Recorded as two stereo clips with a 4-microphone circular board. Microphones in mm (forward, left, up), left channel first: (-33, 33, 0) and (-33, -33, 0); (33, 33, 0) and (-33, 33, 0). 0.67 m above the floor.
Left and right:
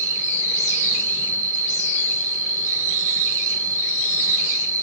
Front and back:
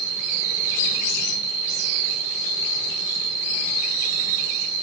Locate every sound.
0.0 s an insect: 85° right, 2 m